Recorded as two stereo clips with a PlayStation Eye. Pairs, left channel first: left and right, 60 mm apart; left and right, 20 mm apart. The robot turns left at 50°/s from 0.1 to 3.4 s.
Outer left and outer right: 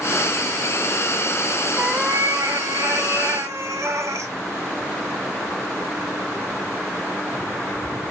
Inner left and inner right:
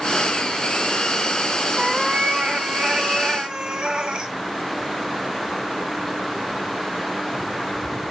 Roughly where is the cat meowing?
Ahead right.